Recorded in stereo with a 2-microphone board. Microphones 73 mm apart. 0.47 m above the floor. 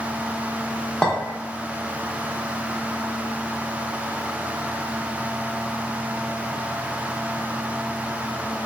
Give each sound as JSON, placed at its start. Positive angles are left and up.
{"t": 1.0, "sound": "a clink", "side_deg": 10, "distance_m": 0.6}